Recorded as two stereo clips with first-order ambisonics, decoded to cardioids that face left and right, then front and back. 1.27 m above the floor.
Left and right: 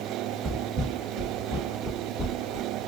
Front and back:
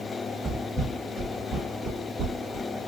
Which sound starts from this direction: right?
Footsteps, at 0.4 s.